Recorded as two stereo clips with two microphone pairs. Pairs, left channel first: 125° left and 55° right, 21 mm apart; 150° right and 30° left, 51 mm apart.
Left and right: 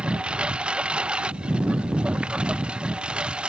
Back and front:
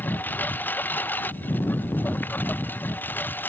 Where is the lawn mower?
90° right; by 3.5 s 95° right.